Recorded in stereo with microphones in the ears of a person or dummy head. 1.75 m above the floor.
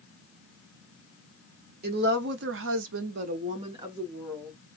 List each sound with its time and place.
1.8 s a woman speaking: 65° right (ahead or behind), 0.9 m; by 4.6 s centre (ahead or behind), 0.9 m